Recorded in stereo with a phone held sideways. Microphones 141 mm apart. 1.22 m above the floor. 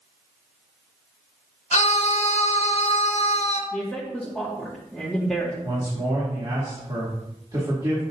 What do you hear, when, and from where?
1.7 s a scream: 50° left (ahead or behind), 1.1 m
3.7 s a man speaking: centre (ahead or behind), 1.9 m
5.6 s a man speaking: 35° right (ahead or behind), 2.5 m